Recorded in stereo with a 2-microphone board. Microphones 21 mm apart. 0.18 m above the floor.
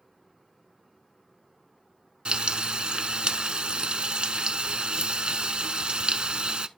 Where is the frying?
55° right (ahead or behind), 0.6 m.